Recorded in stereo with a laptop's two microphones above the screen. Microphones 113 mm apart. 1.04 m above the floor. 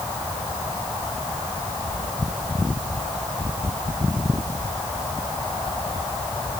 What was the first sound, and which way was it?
Only background noise.